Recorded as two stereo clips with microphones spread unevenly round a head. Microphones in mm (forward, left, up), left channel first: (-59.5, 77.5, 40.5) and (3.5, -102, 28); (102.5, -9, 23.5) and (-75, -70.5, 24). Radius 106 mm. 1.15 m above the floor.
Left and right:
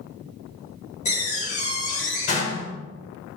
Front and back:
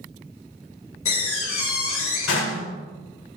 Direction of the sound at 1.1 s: 50° left.